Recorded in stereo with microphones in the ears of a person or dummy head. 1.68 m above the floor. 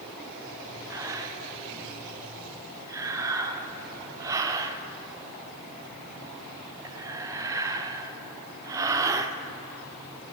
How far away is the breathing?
About 0.6 m.